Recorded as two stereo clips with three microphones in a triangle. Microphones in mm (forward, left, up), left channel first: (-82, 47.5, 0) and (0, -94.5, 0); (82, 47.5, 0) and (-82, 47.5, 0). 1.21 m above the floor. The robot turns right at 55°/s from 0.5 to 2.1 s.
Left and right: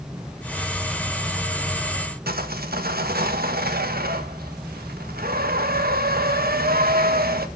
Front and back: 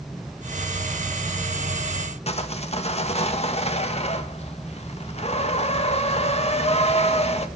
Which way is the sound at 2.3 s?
45° right.